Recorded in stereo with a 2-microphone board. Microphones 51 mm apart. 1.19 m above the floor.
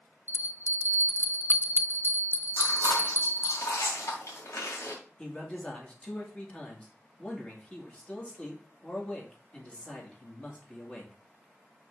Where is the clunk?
No clunk in this recording.